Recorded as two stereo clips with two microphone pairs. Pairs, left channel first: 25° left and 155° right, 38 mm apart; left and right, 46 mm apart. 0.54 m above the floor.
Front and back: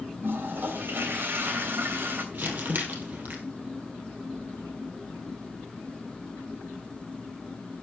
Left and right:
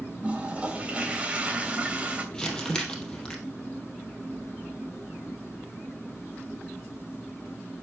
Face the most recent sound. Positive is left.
turn(degrees=165)